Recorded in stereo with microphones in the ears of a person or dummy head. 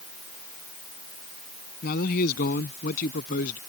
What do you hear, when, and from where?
1.8 s a man speaking: 55° left (ahead or behind); by 3.6 s 50° left (ahead or behind)